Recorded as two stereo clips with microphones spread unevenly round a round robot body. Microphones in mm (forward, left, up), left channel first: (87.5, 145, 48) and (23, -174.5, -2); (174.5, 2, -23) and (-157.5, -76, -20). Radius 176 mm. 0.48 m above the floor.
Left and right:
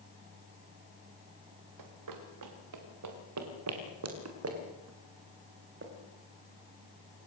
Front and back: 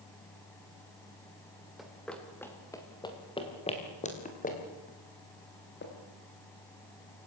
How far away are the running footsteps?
About 4.5 m.